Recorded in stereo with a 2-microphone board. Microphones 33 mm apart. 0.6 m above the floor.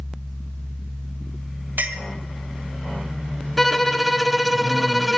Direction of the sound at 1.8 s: 75° right (ahead or behind).